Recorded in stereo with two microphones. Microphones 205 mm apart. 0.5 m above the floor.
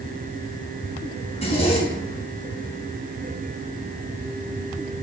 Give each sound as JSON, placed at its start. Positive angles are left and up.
{"t": 1.3, "sound": "a zipper", "side_deg": 30, "distance_m": 4.0}